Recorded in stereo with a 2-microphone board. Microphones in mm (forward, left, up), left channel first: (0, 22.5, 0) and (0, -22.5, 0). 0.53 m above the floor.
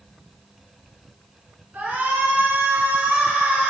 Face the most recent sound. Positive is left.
turn(degrees=-30)  # may be behind; listen again after turning